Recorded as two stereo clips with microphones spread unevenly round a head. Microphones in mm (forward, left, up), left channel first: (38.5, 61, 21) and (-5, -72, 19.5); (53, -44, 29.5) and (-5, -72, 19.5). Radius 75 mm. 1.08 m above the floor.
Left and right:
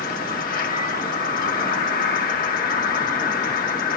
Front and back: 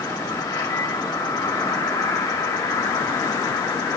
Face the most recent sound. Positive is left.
turn(degrees=60)